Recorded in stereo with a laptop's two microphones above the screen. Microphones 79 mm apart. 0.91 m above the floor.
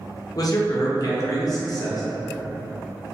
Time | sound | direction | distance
0.3 | a man speaking | 50° left (ahead or behind) | 0.6 m